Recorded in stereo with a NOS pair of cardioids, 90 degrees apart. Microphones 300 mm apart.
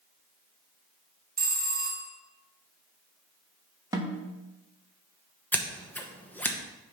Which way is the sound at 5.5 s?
5° left.